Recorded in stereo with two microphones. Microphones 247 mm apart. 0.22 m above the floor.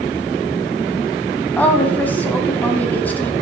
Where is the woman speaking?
5° left (ahead or behind), 1.2 m.